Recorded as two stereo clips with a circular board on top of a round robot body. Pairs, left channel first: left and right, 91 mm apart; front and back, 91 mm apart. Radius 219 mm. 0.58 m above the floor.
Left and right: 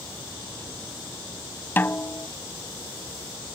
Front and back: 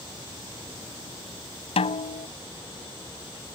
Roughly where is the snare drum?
Ahead.